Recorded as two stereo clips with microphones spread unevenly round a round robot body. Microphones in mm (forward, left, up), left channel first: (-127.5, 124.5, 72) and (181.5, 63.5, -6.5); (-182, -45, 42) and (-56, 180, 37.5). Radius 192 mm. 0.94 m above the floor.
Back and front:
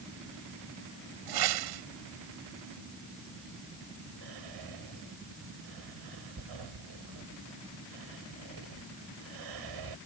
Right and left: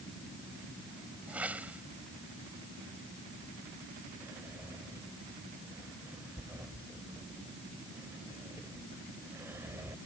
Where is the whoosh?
25° right.